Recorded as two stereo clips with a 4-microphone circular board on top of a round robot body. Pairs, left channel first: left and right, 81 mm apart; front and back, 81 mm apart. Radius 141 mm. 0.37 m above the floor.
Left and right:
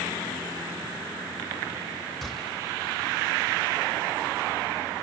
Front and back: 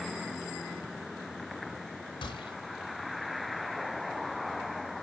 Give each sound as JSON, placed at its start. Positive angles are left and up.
{"t": 2.2, "sound": "a gunshot", "azimuth_deg": 5, "distance_m": 2.5}